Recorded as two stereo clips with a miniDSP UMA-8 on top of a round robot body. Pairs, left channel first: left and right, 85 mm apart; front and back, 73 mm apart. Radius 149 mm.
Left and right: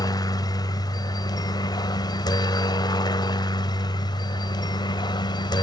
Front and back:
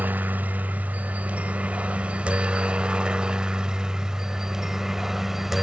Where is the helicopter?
115° left; by 5.6 s 95° left.